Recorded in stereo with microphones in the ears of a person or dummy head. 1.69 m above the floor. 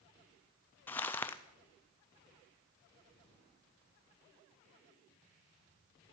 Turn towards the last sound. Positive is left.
turn(degrees=15)  # may be behind; listen again after turning